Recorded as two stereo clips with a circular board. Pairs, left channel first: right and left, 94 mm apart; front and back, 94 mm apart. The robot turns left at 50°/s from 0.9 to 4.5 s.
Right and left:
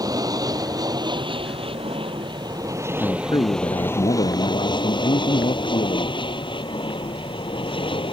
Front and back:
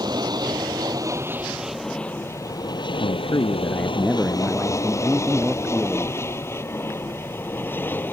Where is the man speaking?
30° right; by 6.2 s 105° right.